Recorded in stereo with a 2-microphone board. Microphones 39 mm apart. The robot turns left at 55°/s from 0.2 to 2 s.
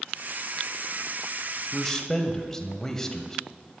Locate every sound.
1.7 s a man speaking: 10° left (ahead or behind), 1.0 m; by 3.4 s 15° left (ahead or behind), 1.0 m